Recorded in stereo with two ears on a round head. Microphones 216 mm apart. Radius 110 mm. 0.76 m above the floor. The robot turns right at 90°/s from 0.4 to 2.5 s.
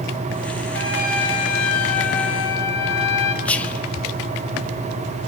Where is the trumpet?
5° left, 3 m; by 3.4 s 165° left, 3 m.